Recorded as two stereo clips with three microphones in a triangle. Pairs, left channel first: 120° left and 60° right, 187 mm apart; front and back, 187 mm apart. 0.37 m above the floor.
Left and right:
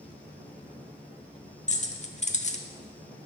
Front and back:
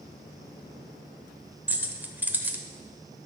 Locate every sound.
1.7 s keys jangling: 105° left, 0.8 m